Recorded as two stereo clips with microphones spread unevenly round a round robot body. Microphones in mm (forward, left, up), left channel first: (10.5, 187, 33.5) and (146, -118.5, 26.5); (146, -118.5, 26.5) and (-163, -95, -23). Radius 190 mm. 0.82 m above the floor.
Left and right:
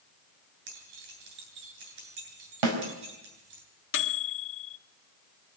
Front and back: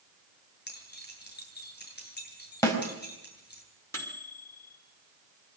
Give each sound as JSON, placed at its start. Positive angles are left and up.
{"t": 0.7, "sound": "keys jangling", "azimuth_deg": -65, "distance_m": 8.5}
{"t": 2.6, "sound": "a snare drum", "azimuth_deg": -85, "distance_m": 5.0}
{"t": 3.9, "sound": "a microwave", "azimuth_deg": 80, "distance_m": 1.3}